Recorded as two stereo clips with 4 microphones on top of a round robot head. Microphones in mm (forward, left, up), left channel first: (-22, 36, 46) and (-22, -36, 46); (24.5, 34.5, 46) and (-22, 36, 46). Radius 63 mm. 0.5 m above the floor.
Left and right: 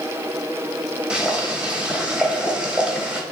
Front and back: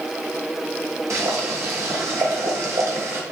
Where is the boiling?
165° right, 3.5 m.